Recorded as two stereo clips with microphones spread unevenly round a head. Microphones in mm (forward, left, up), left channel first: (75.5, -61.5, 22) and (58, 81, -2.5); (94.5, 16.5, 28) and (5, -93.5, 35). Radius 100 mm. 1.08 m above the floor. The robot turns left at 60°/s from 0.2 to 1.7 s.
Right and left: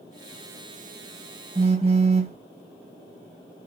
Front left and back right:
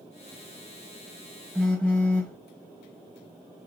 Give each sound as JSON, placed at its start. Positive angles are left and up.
{"t": 1.6, "sound": "a phone buzzing", "azimuth_deg": 140, "distance_m": 0.9}